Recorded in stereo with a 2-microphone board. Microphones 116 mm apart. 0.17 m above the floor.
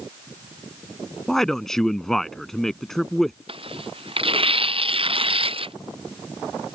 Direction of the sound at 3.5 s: 50° right (ahead or behind).